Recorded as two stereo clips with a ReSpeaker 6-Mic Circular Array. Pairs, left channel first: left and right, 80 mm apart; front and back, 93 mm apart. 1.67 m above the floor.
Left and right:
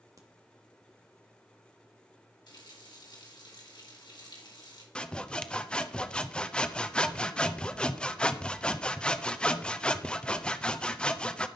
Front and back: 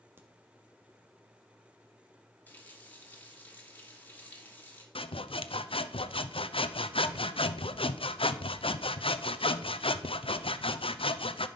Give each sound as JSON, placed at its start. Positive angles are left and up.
{"t": 0.2, "sound": "a crack", "azimuth_deg": -120, "distance_m": 1.5}
{"t": 2.5, "sound": "a running tap", "azimuth_deg": 70, "distance_m": 2.5}
{"t": 5.0, "sound": "sawing", "azimuth_deg": 10, "distance_m": 0.7}